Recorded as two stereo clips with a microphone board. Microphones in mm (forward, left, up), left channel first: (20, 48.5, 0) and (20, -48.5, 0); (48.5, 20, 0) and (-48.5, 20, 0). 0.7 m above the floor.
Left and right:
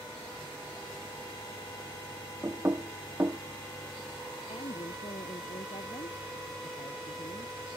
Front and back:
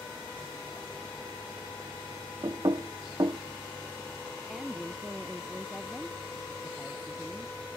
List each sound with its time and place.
2.4 s knocking: 145° right
4.5 s a woman speaking: 95° left